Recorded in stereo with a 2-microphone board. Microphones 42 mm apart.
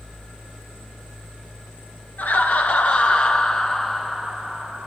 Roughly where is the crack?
I don't hear a crack.